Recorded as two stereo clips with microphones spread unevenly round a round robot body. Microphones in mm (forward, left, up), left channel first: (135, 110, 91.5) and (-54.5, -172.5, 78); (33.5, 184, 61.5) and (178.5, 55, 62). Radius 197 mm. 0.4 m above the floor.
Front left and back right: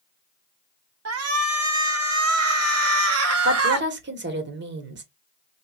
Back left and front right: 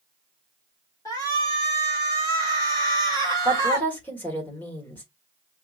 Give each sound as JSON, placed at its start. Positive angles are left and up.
{"t": 1.1, "sound": "a shout", "azimuth_deg": -150, "distance_m": 1.3}
{"t": 3.5, "sound": "a woman speaking", "azimuth_deg": -145, "distance_m": 1.3}